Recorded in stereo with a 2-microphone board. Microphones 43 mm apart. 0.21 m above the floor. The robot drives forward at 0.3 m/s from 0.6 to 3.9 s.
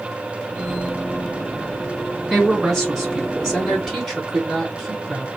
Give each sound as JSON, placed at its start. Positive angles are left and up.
{"t": 2.3, "sound": "a woman speaking", "side_deg": -5, "distance_m": 2.0}